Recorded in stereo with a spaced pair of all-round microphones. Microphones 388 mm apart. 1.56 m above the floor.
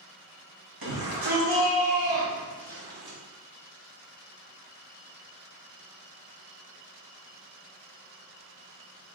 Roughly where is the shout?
Right.